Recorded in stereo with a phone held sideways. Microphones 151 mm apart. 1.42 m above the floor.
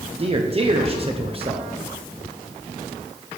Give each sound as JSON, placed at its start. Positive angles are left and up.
{"t": 0.2, "sound": "a man speaking", "side_deg": -35, "distance_m": 0.6}